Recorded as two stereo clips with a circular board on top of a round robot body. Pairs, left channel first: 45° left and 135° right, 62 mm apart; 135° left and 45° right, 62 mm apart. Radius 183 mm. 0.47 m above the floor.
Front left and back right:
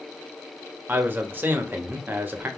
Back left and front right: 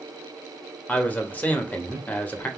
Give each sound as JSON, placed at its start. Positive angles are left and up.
{"t": 0.9, "sound": "a man speaking", "azimuth_deg": -175, "distance_m": 1.0}